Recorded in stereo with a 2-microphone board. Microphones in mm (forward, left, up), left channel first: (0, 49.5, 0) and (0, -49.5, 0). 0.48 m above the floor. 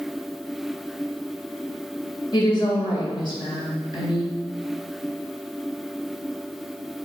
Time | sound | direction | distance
2.3 | a woman speaking | 50° left (ahead or behind) | 2 m